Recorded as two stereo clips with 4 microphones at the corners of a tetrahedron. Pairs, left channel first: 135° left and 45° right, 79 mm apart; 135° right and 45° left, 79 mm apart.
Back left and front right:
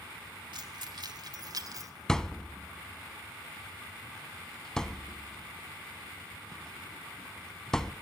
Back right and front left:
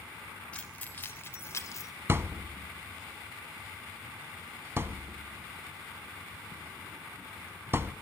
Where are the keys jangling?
60° right, 3 m; by 1.9 s 85° right, 3 m.